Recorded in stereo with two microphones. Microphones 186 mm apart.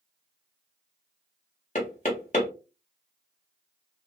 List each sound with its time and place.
1.8 s knocking: 40° left (ahead or behind), 1.2 m